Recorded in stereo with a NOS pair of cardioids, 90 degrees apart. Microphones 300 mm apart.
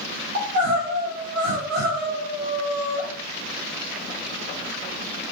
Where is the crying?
55° right, 1.9 m.